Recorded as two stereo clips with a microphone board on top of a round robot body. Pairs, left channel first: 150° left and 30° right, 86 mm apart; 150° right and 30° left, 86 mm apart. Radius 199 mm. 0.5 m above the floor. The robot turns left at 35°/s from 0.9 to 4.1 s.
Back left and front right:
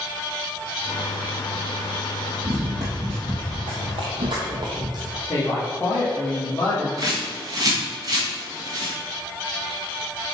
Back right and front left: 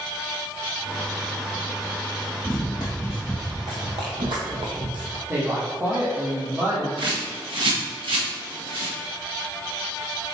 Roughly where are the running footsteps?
Right.